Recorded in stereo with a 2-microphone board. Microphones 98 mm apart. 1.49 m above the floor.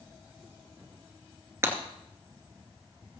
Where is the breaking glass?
25° right (ahead or behind), 2.5 m.